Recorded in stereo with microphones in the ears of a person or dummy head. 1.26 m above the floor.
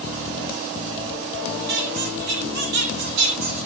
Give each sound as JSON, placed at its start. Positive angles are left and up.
{"t": 1.7, "sound": "a squeak", "side_deg": -70, "distance_m": 4.0}